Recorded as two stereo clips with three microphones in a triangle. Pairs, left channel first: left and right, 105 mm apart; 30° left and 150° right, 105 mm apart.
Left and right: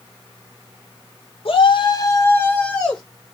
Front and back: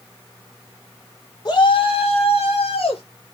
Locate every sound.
1.4 s a shout: 75° left, 1.3 m; by 3.0 s 5° left, 2.5 m